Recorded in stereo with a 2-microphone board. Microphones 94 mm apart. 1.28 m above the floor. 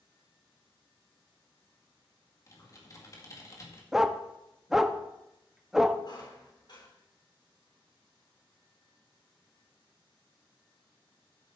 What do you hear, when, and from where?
2.5 s typing on a keyboard: 35° left (ahead or behind), 2 m
3.9 s a dog barking: 5° right (ahead or behind), 0.7 m
6.0 s a squeak: 50° left (ahead or behind), 3 m